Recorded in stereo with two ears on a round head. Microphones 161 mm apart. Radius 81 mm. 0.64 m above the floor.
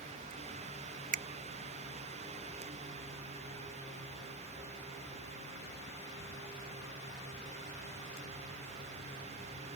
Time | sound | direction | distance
1.1 | a finger snap | 45° right (ahead or behind) | ?